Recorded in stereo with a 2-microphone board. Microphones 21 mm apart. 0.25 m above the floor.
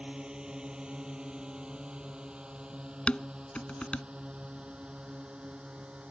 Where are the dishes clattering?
65° left (ahead or behind).